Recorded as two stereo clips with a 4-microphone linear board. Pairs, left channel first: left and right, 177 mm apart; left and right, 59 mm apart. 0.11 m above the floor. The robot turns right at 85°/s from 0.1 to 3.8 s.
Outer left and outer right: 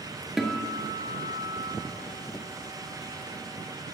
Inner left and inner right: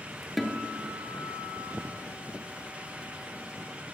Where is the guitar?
5° right, 0.9 m; by 1.7 s 115° left, 0.9 m.